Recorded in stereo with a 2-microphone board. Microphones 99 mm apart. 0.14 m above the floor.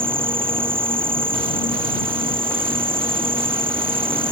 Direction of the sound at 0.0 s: 65° right (ahead or behind).